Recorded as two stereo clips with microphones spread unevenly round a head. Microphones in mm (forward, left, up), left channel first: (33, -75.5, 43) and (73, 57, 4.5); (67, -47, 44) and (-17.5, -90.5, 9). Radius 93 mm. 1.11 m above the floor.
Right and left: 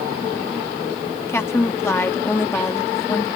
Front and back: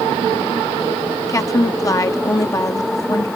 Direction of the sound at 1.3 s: 30° right.